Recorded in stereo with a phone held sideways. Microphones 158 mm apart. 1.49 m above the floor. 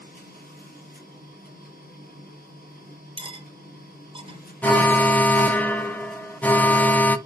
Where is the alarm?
10° left (ahead or behind), 0.6 m.